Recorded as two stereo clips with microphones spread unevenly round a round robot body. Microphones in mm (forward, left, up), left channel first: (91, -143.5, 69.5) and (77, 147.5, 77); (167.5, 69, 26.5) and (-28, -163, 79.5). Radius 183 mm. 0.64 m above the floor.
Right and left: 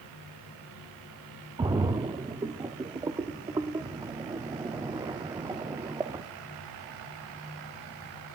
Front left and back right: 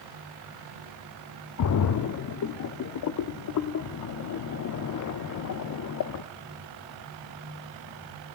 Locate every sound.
1.6 s a splash: 15° left, 0.5 m